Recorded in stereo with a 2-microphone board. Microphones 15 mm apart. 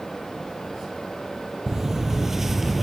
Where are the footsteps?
25° right (ahead or behind), 1.1 m; by 2.8 s 5° right (ahead or behind), 0.8 m.